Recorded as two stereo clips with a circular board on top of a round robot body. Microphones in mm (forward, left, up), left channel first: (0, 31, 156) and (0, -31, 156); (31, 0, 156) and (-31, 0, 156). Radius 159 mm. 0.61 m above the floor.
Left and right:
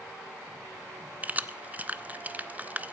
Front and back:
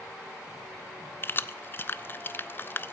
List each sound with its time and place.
1.2 s keys jangling: 35° right, 0.6 m